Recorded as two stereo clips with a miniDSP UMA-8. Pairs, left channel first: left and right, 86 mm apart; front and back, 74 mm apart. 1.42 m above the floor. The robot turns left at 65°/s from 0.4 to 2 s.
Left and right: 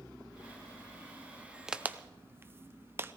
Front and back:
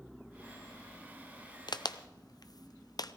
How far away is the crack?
About 0.6 m.